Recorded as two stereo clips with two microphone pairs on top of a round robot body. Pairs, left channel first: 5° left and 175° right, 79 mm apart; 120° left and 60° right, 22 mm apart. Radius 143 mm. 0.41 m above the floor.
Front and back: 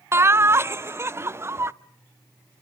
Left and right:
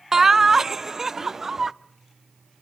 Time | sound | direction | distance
0.1 | laughter | 130° right | 0.9 m